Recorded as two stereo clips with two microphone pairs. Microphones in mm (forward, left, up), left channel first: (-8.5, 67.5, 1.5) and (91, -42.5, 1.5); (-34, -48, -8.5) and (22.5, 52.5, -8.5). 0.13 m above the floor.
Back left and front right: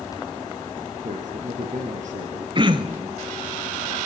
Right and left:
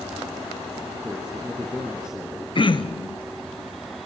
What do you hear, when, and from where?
1.0 s a man speaking: 20° right, 3.5 m
2.5 s throat clearing: 95° right, 0.8 m